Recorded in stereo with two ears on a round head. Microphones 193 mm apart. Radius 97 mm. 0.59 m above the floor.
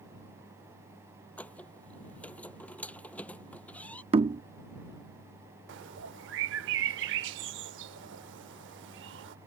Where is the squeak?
5° left (ahead or behind).